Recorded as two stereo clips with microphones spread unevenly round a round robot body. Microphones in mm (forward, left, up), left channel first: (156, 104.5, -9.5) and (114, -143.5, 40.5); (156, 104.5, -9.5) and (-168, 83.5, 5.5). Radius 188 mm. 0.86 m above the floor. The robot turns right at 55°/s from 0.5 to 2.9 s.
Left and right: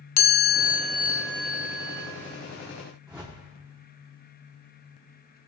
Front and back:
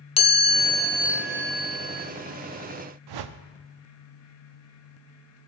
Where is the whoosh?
175° left, 0.6 m.